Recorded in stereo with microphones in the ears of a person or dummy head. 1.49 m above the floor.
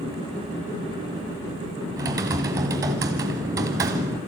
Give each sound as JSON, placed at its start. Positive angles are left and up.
{"t": 2.0, "sound": "typing on a keyboard", "side_deg": -20, "distance_m": 1.5}